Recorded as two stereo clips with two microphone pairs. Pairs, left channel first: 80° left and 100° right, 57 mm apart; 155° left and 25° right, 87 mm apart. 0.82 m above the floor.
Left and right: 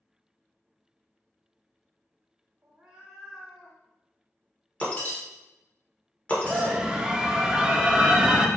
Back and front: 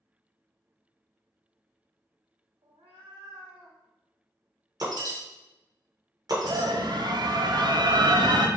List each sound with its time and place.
2.6 s a cat meowing: 45° right, 0.7 m; by 3.8 s 5° right, 2 m
4.8 s breaking glass: 15° left, 1.3 m
6.4 s a scream: 25° right, 0.6 m